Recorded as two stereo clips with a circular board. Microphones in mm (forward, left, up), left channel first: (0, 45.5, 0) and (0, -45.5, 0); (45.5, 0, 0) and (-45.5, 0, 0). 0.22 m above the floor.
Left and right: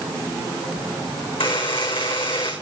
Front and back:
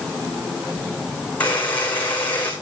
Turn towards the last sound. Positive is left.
turn(degrees=75)